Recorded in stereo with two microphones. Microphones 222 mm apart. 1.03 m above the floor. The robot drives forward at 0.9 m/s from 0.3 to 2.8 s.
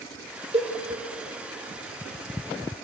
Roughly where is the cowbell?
Right.